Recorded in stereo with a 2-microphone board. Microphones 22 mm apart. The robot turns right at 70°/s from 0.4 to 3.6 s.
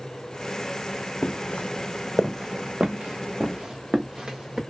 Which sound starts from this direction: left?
Footsteps, at 1.2 s.